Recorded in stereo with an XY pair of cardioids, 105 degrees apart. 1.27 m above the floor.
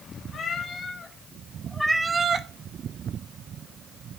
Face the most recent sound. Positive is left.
turn(degrees=-65)